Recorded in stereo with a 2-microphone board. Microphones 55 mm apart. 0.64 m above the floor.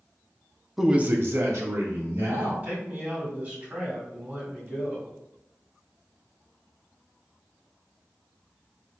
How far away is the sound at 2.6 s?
About 1.9 m.